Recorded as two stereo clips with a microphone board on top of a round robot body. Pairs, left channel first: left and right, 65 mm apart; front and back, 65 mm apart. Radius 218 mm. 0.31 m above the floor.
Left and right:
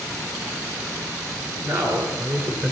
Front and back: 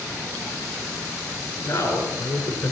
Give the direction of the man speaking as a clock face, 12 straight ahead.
2 o'clock.